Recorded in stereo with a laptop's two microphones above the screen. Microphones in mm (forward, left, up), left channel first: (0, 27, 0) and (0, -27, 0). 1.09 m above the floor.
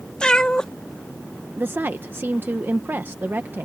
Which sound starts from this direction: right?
A woman speaking, at 1.6 s.